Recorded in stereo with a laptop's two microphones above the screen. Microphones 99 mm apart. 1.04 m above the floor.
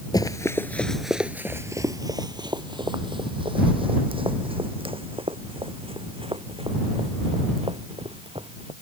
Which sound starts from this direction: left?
Running footsteps, at 0.1 s.